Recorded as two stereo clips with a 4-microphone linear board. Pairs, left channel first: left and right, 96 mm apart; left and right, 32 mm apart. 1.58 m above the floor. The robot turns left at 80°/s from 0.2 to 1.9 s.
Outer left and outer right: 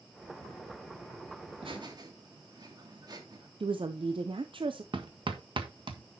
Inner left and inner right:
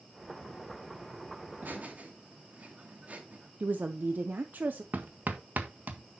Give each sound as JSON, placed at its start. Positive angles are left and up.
{"t": 1.5, "sound": "laughter", "azimuth_deg": -100, "distance_m": 2.5}
{"t": 3.6, "sound": "a woman speaking", "side_deg": -60, "distance_m": 0.7}
{"t": 4.9, "sound": "hammering", "side_deg": -60, "distance_m": 1.4}